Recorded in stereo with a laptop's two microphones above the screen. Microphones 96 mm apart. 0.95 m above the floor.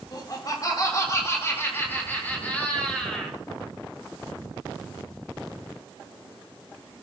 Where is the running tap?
No running tap in this recording.